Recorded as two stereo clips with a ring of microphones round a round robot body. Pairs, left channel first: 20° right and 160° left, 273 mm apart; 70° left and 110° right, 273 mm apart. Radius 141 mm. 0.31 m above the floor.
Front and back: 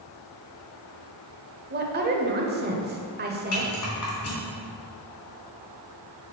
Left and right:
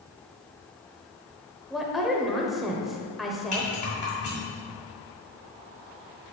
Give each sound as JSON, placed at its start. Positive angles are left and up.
{"t": 1.7, "sound": "a woman speaking", "azimuth_deg": 160, "distance_m": 1.1}
{"t": 3.5, "sound": "a rattle", "azimuth_deg": 5, "distance_m": 3.0}